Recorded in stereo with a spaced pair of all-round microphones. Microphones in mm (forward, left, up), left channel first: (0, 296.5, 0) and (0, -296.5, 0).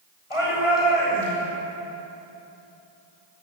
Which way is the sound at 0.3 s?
55° left (ahead or behind).